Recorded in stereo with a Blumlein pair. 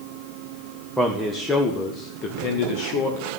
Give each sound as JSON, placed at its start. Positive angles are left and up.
{"t": 1.0, "sound": "a man speaking", "azimuth_deg": -5, "distance_m": 1.6}